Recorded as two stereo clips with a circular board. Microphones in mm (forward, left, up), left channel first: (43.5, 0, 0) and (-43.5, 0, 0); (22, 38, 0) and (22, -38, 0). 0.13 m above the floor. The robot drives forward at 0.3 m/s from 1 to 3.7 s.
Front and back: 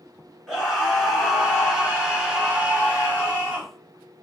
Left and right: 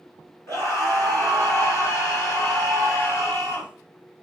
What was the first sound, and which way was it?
A scream, 90° left.